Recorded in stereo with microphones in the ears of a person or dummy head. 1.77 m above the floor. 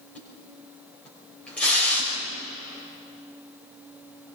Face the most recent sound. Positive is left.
turn(degrees=5)  # may be behind; listen again after turning